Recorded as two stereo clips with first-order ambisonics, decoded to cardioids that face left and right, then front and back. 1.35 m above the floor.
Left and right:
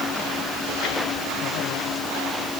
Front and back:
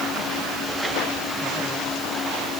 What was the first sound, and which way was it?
Only background noise.